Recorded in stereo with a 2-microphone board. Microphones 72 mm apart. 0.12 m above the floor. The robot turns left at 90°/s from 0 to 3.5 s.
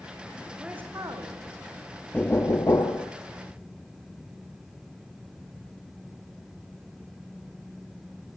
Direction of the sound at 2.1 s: 160° left.